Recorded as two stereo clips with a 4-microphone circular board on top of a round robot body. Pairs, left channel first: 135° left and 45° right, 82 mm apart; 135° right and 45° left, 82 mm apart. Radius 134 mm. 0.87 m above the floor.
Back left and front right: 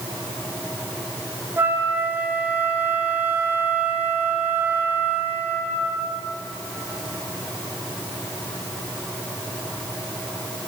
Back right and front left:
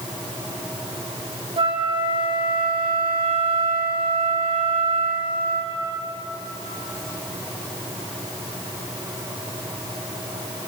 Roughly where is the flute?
Ahead left.